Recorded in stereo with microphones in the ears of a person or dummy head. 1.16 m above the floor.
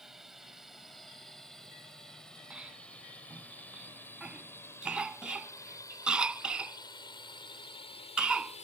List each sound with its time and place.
0.0 s a drone: centre (ahead or behind); by 8.6 s 35° left (ahead or behind)
2.5 s a cough: 5° right (ahead or behind)